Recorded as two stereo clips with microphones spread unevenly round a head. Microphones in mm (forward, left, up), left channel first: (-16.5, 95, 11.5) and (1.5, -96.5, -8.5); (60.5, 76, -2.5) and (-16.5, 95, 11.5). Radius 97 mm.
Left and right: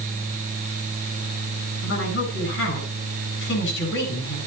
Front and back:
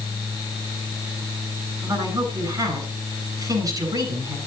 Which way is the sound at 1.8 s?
125° left.